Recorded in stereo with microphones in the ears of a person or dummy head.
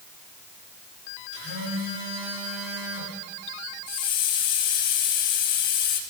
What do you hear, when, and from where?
1.3 s a phone buzzing: 80° right, 7 m
3.9 s a hiss: 50° left (ahead or behind), 1.9 m